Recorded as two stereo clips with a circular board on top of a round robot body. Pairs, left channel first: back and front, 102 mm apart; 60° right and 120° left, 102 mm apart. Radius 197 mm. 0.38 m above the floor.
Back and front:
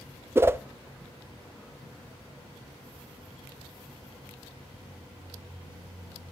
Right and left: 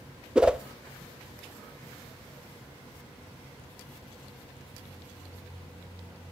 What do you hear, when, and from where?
0.3 s a whoosh: 45° left, 0.6 m